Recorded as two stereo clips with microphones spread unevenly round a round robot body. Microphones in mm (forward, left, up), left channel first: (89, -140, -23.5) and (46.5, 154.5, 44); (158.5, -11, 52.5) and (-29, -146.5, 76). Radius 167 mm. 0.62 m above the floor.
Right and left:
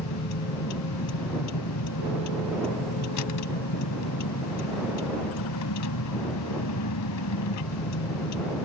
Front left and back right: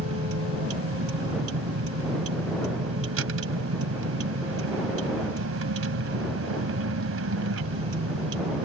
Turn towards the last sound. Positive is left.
turn(degrees=-120)